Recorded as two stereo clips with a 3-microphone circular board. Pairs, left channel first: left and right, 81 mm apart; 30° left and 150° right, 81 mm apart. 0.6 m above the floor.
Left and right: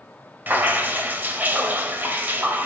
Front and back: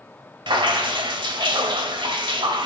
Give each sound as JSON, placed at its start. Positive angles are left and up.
{"t": 0.5, "sound": "dripping", "azimuth_deg": -155, "distance_m": 1.1}